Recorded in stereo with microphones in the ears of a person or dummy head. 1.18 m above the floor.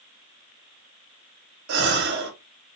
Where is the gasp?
65° right (ahead or behind), 1.0 m.